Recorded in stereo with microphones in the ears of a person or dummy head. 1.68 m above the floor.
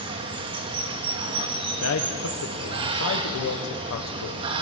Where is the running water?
30° right (ahead or behind), 1.2 m.